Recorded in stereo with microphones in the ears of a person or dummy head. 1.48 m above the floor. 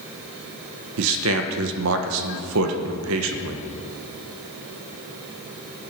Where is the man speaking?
75° right (ahead or behind), 1.4 m.